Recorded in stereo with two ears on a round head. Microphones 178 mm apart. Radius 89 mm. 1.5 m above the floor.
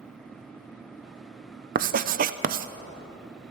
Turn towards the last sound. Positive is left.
turn(degrees=-45)  # may be behind; listen again after turning